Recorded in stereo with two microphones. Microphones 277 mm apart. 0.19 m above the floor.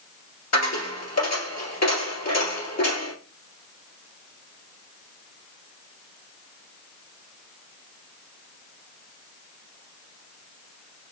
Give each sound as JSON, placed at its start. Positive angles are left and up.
{"t": 0.5, "sound": "a dropped coin", "side_deg": 65, "distance_m": 1.8}